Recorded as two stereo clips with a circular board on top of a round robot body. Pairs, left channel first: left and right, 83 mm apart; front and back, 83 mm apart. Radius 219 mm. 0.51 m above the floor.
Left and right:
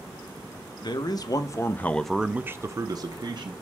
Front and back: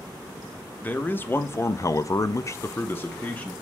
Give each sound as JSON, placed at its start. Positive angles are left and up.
{"t": 0.8, "sound": "a man speaking", "azimuth_deg": 70, "distance_m": 1.1}